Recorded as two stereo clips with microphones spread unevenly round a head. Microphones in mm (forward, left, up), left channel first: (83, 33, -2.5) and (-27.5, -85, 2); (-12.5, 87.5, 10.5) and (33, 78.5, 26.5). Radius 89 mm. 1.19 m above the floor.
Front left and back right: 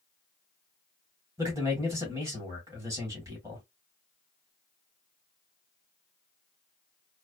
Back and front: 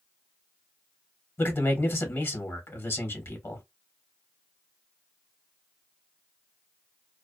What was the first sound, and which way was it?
A man speaking, 150° left.